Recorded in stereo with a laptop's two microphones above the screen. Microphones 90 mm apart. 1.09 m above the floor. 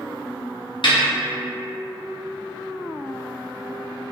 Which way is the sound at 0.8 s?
60° left (ahead or behind).